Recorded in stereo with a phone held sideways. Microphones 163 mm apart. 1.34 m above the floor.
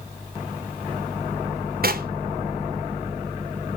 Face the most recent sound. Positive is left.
turn(degrees=-65)  # may be behind; listen again after turning